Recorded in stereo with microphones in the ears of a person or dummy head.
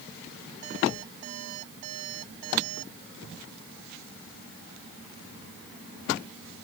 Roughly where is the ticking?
No ticking in this recording.